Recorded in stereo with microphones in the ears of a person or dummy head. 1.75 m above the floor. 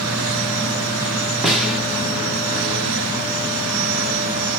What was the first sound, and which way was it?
A snare drum, 5° right (ahead or behind).